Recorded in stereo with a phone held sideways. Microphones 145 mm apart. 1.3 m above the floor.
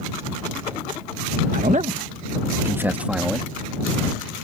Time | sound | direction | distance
1.5 | a man speaking | 70° right (ahead or behind) | ?